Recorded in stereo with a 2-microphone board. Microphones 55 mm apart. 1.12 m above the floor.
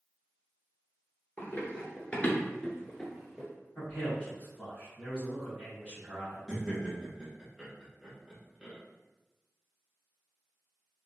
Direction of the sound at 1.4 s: 30° left (ahead or behind).